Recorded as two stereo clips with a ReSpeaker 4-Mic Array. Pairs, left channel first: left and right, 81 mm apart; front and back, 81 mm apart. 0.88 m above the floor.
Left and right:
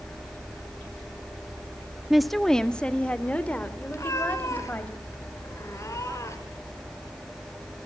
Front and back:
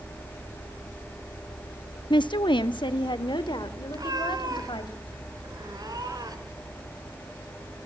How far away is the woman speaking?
About 0.9 m.